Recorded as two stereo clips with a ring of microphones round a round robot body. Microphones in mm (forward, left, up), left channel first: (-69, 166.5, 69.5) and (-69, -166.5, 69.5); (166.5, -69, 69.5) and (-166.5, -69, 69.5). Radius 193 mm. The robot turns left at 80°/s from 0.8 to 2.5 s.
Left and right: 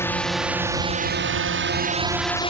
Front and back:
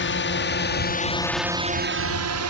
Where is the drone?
10° left; by 2.5 s 155° left.